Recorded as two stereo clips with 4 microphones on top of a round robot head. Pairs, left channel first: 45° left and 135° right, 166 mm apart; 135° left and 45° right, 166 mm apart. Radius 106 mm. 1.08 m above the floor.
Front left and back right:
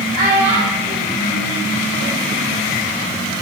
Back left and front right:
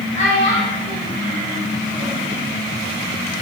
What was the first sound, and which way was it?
A child speaking, 175° right.